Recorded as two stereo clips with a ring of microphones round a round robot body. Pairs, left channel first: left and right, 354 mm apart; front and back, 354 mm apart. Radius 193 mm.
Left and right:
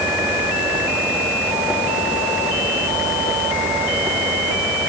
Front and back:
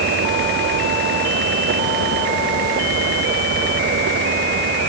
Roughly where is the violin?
I don't hear a violin.